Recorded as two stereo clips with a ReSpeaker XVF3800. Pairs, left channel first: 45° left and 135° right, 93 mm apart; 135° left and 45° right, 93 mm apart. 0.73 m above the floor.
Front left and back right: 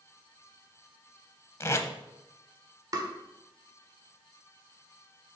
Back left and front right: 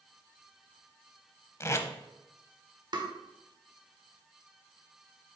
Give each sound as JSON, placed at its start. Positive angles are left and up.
{"t": 1.6, "sound": "tape being pulled", "azimuth_deg": 90, "distance_m": 0.7}
{"t": 2.9, "sound": "tapping", "azimuth_deg": -85, "distance_m": 0.9}